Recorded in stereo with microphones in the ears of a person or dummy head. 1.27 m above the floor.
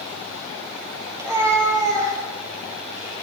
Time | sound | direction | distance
1.1 | a cat meowing | 20° right (ahead or behind) | 5 m